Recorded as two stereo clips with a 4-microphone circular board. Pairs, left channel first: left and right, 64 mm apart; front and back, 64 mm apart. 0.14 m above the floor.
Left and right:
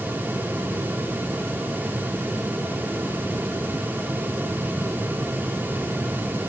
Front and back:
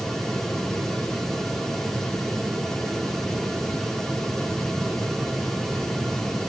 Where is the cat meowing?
No cat meowing in this recording.